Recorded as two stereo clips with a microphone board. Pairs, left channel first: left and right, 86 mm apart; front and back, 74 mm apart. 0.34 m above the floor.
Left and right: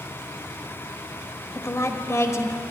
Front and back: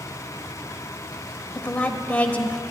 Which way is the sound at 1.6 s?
60° left.